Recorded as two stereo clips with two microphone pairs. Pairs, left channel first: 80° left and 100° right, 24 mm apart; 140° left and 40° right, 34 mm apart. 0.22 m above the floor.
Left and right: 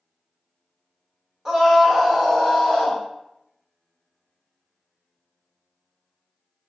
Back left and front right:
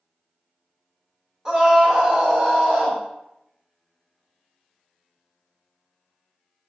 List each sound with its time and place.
1.4 s a scream: 65° right, 1.2 m; by 3.0 s 20° left, 1.3 m